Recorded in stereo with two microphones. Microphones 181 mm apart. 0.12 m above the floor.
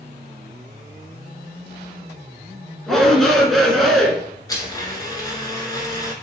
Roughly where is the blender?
Left.